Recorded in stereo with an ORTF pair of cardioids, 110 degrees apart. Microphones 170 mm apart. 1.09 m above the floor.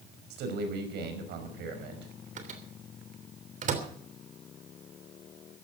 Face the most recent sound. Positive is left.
turn(degrees=-45)